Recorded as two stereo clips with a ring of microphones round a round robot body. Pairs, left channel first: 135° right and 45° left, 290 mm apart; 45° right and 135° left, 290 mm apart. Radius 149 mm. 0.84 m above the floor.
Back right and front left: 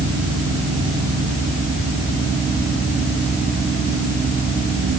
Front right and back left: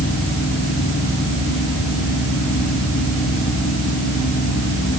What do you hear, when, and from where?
Only background noise.